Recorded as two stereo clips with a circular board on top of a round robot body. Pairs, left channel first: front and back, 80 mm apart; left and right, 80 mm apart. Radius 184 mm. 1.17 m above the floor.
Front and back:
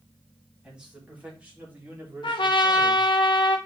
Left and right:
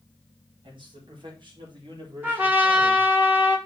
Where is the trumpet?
20° right, 1.2 m.